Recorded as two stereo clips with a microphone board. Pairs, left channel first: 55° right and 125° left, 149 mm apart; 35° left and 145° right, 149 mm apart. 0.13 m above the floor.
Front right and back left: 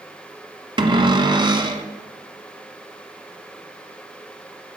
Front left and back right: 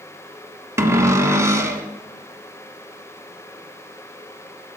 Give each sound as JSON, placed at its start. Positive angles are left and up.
{"t": 0.8, "sound": "a cupboard door", "azimuth_deg": 155, "distance_m": 1.1}